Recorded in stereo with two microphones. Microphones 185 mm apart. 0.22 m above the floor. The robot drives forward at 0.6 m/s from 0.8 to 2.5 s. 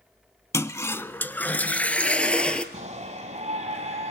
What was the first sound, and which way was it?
A toilet flushing, 15° left (ahead or behind).